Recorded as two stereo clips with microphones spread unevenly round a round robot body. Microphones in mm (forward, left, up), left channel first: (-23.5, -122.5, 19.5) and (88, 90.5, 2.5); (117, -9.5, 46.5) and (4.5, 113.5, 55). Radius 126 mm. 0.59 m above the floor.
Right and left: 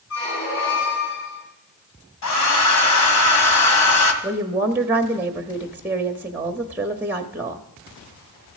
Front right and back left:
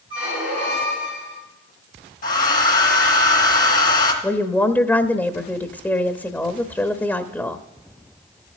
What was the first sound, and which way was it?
A squeak, 155° right.